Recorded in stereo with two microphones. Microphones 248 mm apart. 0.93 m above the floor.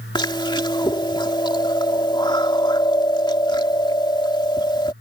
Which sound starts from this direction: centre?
Chewing, at 0.1 s.